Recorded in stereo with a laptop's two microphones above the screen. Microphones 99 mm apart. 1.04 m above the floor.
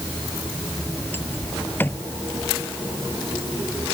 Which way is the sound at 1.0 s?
20° left (ahead or behind).